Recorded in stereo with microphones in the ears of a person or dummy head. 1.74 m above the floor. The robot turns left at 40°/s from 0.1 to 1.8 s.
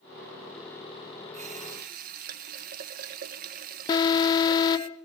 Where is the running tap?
40° right (ahead or behind), 1.2 m; by 4.9 s 50° right (ahead or behind), 1.2 m.